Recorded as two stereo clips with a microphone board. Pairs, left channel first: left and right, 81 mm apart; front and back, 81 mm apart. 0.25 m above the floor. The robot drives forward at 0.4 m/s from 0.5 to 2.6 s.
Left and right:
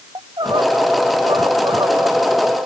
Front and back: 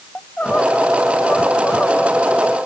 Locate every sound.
0.1 s crying: 75° right